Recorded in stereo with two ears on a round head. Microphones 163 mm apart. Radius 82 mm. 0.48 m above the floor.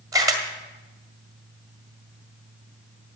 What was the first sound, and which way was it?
A camera shutter, 20° right (ahead or behind).